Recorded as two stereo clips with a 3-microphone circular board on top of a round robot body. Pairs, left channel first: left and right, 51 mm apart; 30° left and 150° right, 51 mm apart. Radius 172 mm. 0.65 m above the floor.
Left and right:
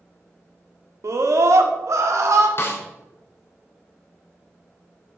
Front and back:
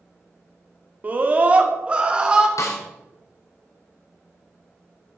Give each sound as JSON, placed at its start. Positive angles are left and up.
{"t": 1.0, "sound": "a scream", "azimuth_deg": -95, "distance_m": 1.7}
{"t": 2.6, "sound": "a snare drum", "azimuth_deg": 50, "distance_m": 1.5}